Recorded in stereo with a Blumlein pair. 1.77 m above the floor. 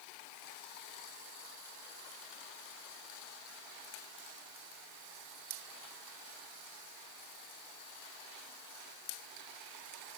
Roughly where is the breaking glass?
No breaking glass in this recording.